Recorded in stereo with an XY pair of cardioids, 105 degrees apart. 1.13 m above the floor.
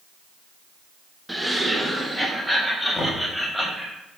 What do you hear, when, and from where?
1.3 s laughter: 5° right, 0.9 m; by 3.9 s 5° left, 2.5 m
3.0 s knocking: 30° left, 1.8 m